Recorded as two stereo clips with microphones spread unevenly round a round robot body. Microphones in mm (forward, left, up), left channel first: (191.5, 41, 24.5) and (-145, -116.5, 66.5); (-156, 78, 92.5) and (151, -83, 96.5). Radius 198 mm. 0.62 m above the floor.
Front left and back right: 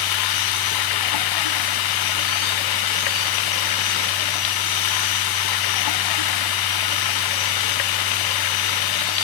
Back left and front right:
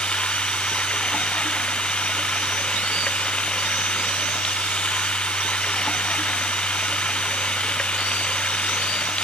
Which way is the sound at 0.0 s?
65° left.